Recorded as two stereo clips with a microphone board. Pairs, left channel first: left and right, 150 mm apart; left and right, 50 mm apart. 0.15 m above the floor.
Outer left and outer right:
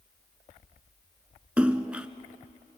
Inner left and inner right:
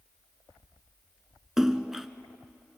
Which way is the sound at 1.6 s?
10° right (ahead or behind).